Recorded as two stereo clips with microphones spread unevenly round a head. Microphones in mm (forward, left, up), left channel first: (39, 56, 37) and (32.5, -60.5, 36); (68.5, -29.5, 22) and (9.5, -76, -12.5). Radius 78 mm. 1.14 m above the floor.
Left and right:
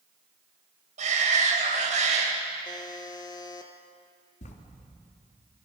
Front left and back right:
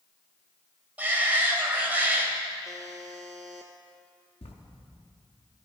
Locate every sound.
1.0 s a shout: 70° right, 5 m
2.6 s a buzzer: 140° left, 1.2 m
4.4 s writing: 70° left, 2.5 m